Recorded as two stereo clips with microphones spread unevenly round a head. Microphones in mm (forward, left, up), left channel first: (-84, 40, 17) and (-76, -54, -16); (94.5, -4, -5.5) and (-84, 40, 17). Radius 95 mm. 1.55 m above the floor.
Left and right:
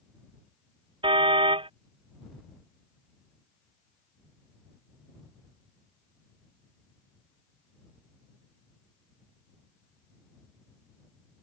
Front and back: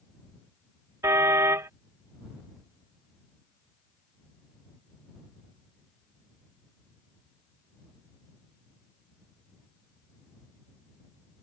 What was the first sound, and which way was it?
A car horn, 120° right.